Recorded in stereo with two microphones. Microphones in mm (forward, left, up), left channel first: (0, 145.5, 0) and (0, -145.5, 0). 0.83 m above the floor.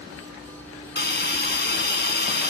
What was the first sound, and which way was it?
A hiss, 35° left (ahead or behind).